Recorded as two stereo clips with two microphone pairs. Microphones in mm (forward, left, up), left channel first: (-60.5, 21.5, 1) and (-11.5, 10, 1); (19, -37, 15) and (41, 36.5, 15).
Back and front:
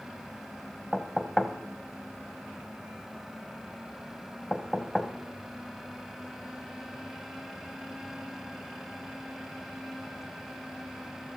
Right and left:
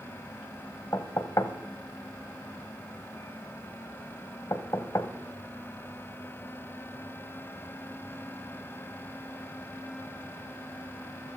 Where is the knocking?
110° right, 1.1 m.